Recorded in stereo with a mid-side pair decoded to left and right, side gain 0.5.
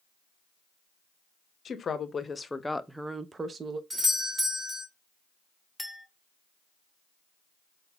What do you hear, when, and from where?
1.6 s a woman speaking: 45° left, 1.0 m; by 3.8 s 45° right, 0.8 m
3.9 s a doorbell: 15° right, 1.9 m
5.8 s a clink: 5° right, 1.3 m